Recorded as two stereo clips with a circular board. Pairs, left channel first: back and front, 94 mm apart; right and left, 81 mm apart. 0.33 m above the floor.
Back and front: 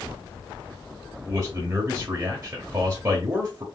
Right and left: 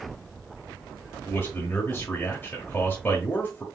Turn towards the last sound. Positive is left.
turn(degrees=-45)